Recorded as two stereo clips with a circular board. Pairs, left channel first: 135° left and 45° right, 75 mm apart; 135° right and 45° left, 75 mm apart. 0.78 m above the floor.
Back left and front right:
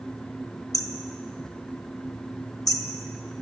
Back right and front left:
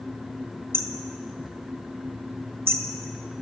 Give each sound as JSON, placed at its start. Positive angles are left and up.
{"t": 0.7, "sound": "hammering", "azimuth_deg": 100, "distance_m": 1.9}